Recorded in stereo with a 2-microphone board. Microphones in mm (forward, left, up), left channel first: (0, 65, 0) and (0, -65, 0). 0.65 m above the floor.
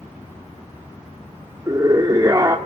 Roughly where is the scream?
Right.